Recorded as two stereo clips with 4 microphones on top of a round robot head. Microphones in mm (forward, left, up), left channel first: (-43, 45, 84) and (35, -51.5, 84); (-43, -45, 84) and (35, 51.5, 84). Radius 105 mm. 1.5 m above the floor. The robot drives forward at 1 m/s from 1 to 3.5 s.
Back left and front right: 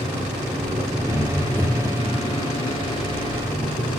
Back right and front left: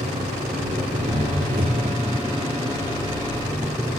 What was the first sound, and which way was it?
An engine running, 30° left.